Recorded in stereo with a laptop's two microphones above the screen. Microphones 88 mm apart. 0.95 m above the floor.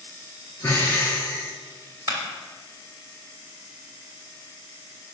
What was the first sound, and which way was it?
Breathing, 25° left (ahead or behind).